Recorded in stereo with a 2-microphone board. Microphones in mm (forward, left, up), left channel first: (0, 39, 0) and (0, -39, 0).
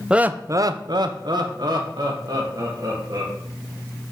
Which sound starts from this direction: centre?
Laughter, at 0.1 s.